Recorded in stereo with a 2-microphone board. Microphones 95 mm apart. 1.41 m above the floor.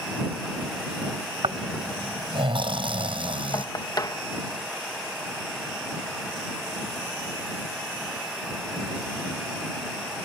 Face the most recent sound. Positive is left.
turn(degrees=40)  # may be behind; listen again after turning